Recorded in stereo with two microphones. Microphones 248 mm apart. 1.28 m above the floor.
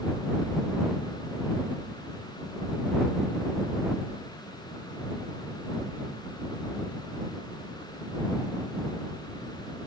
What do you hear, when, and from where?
Only background noise.